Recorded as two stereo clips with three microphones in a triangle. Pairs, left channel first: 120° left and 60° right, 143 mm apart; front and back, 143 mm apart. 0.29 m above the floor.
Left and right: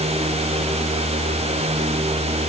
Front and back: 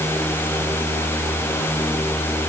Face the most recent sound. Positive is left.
No sound to turn to.